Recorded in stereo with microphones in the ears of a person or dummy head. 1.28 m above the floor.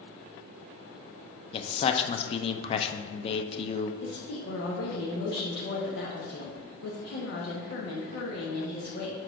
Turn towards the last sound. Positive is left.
turn(degrees=65)  # may be behind; listen again after turning